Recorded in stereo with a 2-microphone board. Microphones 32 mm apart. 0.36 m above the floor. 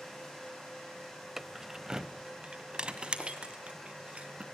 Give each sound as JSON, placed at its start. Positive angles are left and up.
{"t": 1.4, "sound": "keys jangling", "side_deg": -5, "distance_m": 0.9}